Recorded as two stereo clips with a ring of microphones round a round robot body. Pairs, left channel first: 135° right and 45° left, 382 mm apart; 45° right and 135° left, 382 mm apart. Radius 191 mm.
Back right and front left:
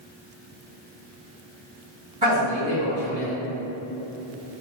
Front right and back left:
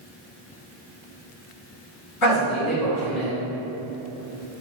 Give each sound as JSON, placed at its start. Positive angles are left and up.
{"t": 2.2, "sound": "a man speaking", "azimuth_deg": -20, "distance_m": 1.8}